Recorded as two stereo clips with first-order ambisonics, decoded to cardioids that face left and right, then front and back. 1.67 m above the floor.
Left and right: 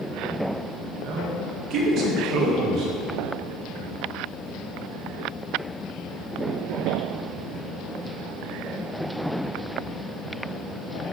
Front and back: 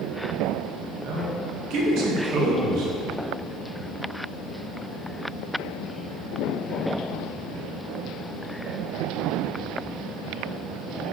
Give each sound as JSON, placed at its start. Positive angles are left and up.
{"t": 1.0, "sound": "a man speaking", "azimuth_deg": -145, "distance_m": 2.0}